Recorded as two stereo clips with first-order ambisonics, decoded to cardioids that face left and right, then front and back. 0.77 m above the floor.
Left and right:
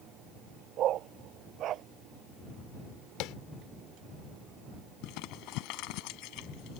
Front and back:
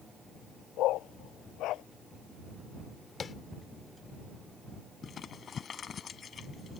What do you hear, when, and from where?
0.8 s a dog barking: 40° right
3.2 s tapping: 65° left
5.0 s crumpling: 65° left